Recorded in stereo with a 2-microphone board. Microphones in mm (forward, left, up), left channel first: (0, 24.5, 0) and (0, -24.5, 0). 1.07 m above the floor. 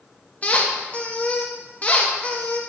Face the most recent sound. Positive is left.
turn(degrees=30)  # may be behind; listen again after turning